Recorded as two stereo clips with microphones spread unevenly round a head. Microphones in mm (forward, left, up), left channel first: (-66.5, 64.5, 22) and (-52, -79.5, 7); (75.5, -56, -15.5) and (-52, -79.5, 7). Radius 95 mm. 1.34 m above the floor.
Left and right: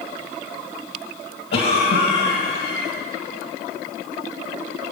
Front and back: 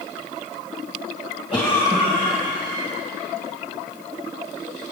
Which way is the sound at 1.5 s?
105° left.